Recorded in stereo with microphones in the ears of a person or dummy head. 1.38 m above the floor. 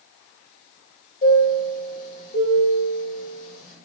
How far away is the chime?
About 0.8 m.